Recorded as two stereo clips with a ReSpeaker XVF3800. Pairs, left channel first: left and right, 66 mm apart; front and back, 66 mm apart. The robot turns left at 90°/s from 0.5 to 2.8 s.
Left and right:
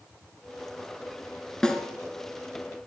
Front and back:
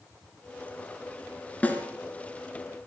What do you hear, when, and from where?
1.6 s a snare drum: 25° left, 1.6 m; by 1.9 s 5° left, 1.6 m